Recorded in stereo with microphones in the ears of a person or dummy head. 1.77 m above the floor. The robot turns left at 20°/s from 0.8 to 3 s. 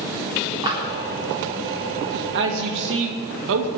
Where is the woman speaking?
60° right (ahead or behind), 2.5 m; by 3.7 s 70° right (ahead or behind), 2.5 m.